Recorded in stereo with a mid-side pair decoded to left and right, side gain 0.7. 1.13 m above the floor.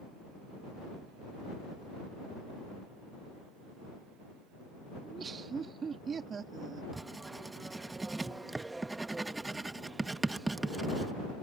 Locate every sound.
5.0 s laughter: 30° right
6.9 s writing: 15° right